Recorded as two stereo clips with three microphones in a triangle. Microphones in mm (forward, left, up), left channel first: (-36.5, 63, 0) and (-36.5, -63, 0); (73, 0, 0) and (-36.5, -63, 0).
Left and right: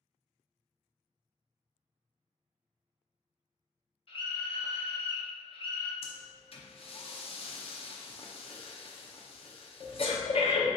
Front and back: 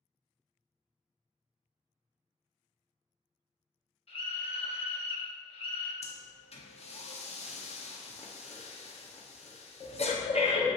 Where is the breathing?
55° left, 0.7 m.